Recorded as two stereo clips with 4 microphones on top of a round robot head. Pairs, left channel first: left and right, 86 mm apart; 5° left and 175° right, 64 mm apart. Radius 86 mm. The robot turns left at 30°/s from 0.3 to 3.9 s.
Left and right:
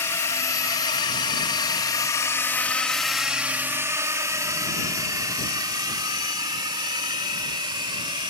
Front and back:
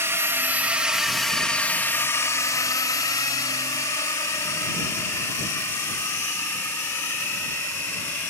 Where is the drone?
145° left; by 8.3 s 55° right.